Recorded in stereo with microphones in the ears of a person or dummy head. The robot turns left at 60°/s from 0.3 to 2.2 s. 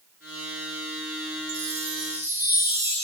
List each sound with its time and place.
1.5 s a chime: 125° right, 1.8 m; by 3.0 s 165° right, 1.8 m